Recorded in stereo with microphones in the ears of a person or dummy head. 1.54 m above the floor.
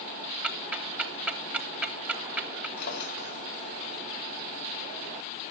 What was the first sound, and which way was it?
Ticking, 5° right (ahead or behind).